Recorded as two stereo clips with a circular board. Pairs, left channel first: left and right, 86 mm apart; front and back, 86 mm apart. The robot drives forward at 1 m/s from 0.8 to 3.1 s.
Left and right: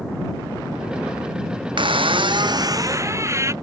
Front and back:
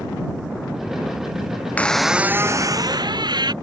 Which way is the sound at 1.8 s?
70° right.